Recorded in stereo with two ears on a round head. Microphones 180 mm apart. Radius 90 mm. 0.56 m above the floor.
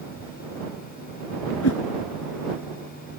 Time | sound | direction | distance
1.6 | a whoosh | 85° left | ?